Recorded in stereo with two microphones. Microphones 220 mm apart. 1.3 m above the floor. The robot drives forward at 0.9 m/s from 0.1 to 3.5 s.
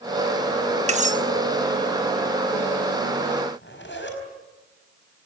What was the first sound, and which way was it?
Cutlery clinking, 30° right (ahead or behind).